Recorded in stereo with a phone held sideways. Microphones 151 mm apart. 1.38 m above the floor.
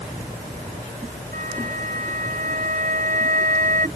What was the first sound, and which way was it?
A flute, 65° right (ahead or behind).